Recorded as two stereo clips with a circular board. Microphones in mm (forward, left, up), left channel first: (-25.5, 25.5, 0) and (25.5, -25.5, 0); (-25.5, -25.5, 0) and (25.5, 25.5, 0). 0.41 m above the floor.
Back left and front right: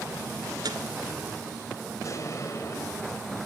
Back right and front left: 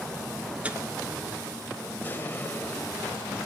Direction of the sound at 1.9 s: 165° left.